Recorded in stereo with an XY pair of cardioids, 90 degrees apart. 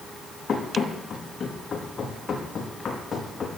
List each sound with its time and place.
0.5 s running footsteps: 45° left, 4.5 m